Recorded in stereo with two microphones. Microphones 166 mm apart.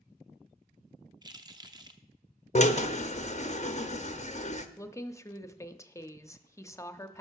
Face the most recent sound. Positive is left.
turn(degrees=20)  # may be behind; listen again after turning